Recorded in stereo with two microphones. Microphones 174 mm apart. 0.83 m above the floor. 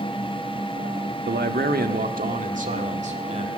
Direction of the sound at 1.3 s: 70° right (ahead or behind).